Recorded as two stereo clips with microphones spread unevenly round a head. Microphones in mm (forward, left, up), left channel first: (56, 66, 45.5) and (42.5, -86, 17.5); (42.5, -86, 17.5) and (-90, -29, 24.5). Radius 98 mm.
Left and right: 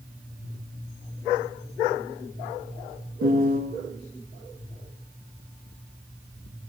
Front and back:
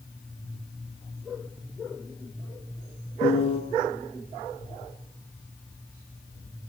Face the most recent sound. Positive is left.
turn(degrees=-75)